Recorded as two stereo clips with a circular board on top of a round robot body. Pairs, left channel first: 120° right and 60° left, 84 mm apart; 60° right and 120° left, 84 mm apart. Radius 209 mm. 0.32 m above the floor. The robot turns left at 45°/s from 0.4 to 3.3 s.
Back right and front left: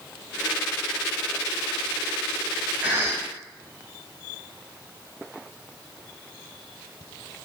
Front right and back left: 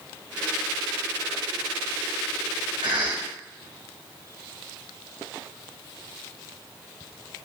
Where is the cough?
130° left, 3.5 m; by 3.3 s 110° left, 3.5 m.